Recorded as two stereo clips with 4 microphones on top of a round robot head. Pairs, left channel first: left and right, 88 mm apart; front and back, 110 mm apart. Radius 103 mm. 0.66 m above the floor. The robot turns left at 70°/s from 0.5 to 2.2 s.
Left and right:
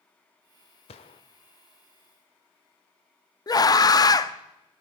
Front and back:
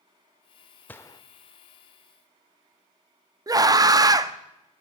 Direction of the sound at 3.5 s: 125° left.